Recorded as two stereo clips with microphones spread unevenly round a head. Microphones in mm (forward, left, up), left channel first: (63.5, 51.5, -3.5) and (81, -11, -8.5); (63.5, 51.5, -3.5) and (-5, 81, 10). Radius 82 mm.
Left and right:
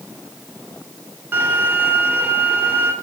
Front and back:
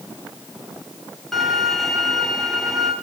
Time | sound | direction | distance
1.3 | a violin | 125° right | 1.9 m